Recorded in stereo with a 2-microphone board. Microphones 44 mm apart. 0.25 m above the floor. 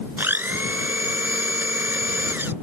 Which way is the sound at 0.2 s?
55° right (ahead or behind).